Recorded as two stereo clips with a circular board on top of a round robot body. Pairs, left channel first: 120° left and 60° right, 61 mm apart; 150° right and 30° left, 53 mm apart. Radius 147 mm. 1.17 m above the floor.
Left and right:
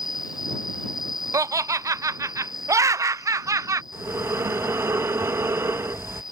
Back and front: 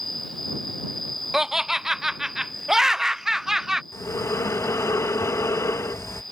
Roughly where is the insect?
Behind left.